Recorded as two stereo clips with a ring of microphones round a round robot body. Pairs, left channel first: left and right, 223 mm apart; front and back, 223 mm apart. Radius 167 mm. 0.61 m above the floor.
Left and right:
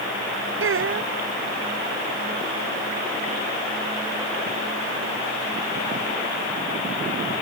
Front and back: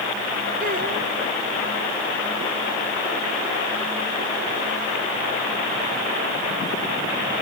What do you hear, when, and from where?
0.6 s a child speaking: 115° right